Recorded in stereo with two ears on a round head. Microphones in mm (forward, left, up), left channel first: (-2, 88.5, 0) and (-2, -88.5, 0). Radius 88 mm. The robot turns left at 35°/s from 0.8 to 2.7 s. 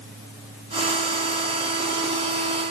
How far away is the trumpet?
I don't hear a trumpet.